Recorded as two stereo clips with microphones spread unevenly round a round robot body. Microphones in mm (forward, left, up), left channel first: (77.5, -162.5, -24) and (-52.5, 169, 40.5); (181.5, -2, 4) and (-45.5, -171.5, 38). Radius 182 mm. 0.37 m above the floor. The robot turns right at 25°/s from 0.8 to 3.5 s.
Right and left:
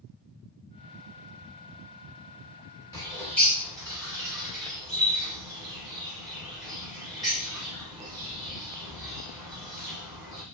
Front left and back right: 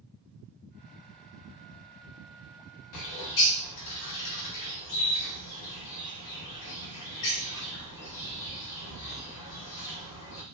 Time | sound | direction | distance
2.9 | a bird | 15° left | 0.8 m